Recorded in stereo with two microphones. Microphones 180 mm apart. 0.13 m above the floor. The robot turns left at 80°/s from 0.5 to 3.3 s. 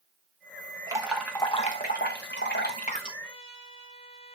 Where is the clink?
No clink in this recording.